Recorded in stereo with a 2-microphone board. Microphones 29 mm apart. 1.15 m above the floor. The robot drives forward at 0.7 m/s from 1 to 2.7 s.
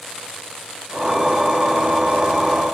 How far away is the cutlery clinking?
No cutlery clinking in this recording.